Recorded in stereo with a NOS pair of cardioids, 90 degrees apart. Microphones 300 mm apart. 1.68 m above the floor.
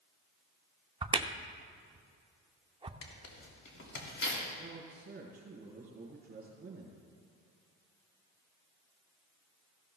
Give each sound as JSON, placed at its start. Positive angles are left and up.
{"t": 1.0, "sound": "a crack", "azimuth_deg": -15, "distance_m": 0.6}
{"t": 3.0, "sound": "tearing paper", "azimuth_deg": 55, "distance_m": 2.5}
{"t": 4.6, "sound": "a man speaking", "azimuth_deg": -30, "distance_m": 4.5}